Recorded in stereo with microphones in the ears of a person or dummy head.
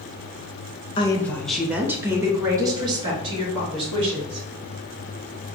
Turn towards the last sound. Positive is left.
turn(degrees=-25)  # may be behind; listen again after turning